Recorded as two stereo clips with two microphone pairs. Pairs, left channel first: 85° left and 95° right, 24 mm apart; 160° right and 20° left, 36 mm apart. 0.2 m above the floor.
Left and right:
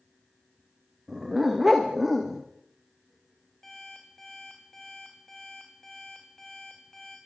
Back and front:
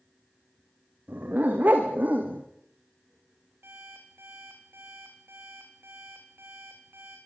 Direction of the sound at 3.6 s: 5° left.